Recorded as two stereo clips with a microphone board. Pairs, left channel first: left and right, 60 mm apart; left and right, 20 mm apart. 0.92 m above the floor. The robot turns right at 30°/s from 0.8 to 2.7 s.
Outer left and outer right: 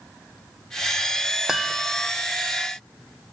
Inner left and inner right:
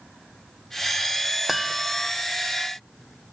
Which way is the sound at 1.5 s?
10° right (ahead or behind).